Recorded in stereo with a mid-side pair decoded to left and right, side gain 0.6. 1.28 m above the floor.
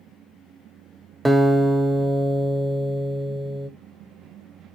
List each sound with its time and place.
1.2 s a guitar: 5° right, 0.8 m